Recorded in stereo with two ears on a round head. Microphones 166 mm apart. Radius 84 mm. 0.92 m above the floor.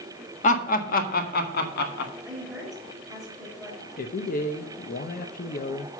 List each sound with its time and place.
0.4 s laughter: 45° left (ahead or behind), 1.5 m; by 2.1 s 60° left (ahead or behind), 2 m
2.2 s a woman speaking: 5° right (ahead or behind), 4.5 m
4.0 s a man speaking: 50° left (ahead or behind), 0.9 m